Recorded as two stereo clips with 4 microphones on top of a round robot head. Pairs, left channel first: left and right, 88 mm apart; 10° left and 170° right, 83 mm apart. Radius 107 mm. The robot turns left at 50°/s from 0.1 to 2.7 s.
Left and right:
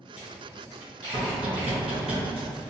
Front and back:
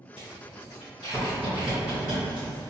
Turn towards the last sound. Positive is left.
turn(degrees=-140)